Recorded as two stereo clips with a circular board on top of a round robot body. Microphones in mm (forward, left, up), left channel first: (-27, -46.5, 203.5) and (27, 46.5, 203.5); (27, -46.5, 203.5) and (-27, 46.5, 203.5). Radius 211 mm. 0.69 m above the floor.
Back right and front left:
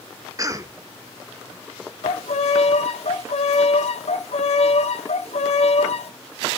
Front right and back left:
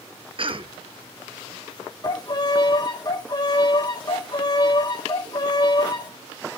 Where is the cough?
110° left, 1.6 m.